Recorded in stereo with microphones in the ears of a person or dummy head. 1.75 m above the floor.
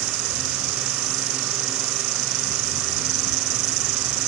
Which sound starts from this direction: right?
An insect, at 0.0 s.